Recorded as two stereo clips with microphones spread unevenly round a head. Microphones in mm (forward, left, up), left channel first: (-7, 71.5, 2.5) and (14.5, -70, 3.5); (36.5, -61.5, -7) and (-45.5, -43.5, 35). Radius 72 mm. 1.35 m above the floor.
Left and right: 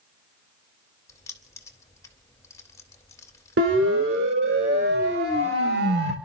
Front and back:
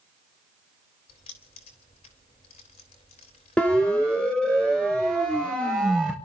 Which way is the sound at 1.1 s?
30° left.